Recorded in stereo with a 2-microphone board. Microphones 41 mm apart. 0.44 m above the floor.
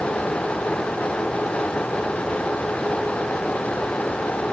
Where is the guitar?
I don't hear a guitar.